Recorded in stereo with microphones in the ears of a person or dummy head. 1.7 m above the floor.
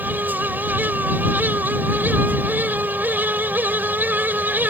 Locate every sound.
0.0 s a fan: 10° right (ahead or behind)